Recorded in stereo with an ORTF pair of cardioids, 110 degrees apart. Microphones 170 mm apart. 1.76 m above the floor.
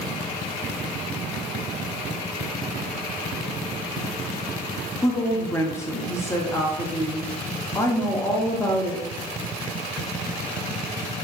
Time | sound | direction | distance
5.0 | a woman speaking | 15° left | 0.9 m